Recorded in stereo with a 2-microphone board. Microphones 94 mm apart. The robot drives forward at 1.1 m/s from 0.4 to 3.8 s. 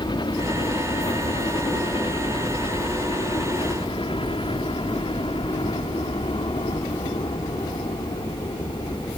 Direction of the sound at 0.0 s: 55° left (ahead or behind).